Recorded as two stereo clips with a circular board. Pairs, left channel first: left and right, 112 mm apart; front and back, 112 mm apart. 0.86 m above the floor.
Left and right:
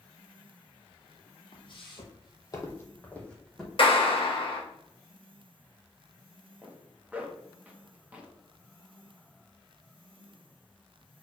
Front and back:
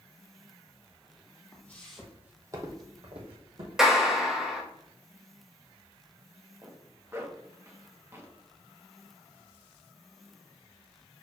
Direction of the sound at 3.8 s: 95° left.